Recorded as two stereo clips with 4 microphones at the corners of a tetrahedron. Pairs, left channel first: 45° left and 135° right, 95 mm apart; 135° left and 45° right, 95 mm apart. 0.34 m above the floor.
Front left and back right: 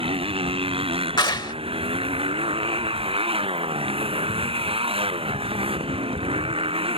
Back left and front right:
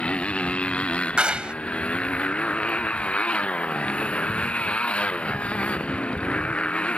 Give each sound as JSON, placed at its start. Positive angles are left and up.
{"t": 0.0, "sound": "a motorcycle", "azimuth_deg": -145}
{"t": 1.2, "sound": "a clap", "azimuth_deg": 30}